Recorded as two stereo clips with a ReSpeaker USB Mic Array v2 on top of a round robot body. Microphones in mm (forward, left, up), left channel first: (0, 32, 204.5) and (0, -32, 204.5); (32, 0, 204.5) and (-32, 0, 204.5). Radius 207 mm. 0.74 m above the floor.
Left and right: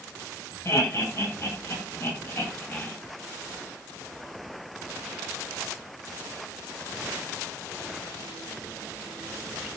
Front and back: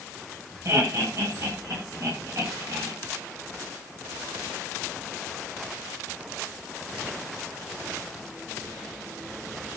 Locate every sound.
0.7 s laughter: 135° left, 8 m; by 2.9 s 145° left, 7.5 m